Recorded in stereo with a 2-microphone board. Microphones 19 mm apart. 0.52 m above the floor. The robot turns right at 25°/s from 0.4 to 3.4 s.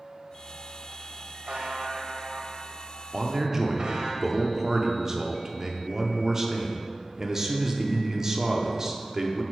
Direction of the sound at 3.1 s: 25° right (ahead or behind).